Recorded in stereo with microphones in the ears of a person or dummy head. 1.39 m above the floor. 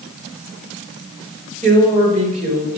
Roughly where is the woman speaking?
Right.